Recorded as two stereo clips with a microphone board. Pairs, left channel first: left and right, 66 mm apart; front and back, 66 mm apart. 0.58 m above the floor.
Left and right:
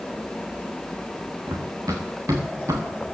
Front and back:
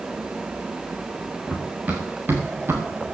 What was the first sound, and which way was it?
Running footsteps, 115° right.